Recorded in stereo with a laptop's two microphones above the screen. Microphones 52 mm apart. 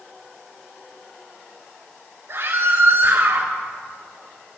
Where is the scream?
65° right (ahead or behind), 3.5 m.